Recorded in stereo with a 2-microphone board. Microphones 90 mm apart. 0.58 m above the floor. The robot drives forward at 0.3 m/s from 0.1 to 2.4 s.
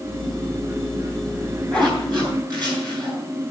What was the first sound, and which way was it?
A zipper, 50° right (ahead or behind).